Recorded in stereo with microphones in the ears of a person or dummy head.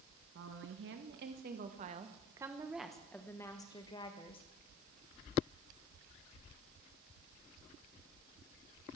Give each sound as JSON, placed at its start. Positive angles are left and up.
{"t": 0.3, "sound": "a woman speaking", "side_deg": -65, "distance_m": 1.4}